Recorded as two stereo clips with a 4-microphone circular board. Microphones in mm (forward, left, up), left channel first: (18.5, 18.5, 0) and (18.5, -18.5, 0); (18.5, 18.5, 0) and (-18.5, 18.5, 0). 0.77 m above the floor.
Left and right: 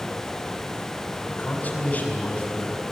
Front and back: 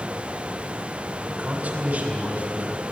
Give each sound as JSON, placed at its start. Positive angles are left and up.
{"t": 1.3, "sound": "a man speaking", "azimuth_deg": 145, "distance_m": 4.5}